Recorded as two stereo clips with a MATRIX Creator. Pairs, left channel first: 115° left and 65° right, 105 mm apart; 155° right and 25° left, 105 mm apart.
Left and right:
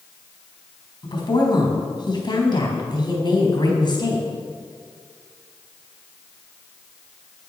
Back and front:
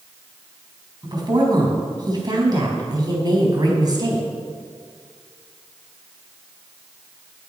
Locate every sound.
1.0 s a woman speaking: 70° left, 4 m